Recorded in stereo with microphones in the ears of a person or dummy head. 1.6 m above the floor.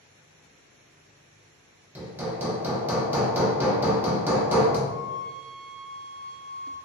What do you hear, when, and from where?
1.9 s hammering: 15° right (ahead or behind), 0.5 m
4.9 s a flute: 55° right (ahead or behind), 1.6 m